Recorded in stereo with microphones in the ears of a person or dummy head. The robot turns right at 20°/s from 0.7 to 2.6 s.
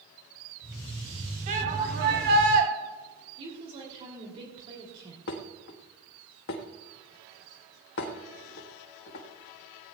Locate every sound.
1.5 s a shout: 40° right (ahead or behind), 2.5 m; by 2.7 s 65° right (ahead or behind), 2.5 m
3.4 s a woman speaking: 35° right (ahead or behind), 2.5 m
5.3 s dishes clattering: 55° left (ahead or behind), 1.4 m